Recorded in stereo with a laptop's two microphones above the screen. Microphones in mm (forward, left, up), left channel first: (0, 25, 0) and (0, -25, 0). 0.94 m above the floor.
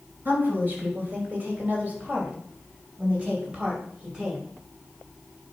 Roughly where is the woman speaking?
Right.